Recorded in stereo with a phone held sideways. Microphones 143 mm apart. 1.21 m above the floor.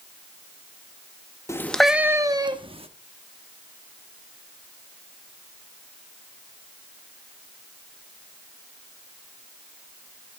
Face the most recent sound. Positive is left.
turn(degrees=-40)  # may be behind; listen again after turning